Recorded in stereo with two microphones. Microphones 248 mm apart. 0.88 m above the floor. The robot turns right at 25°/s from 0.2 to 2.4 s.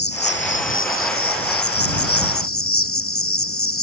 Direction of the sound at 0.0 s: 50° left.